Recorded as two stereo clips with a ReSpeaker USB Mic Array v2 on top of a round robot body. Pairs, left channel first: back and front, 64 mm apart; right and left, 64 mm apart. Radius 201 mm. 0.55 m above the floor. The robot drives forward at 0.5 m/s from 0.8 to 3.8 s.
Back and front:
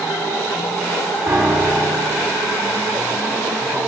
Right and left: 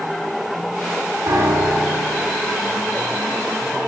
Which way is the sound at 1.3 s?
50° left.